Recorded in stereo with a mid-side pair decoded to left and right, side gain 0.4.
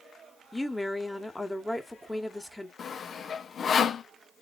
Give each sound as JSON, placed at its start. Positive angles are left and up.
{"t": 0.5, "sound": "a woman speaking", "azimuth_deg": 10, "distance_m": 1.5}
{"t": 2.8, "sound": "sawing", "azimuth_deg": 60, "distance_m": 0.6}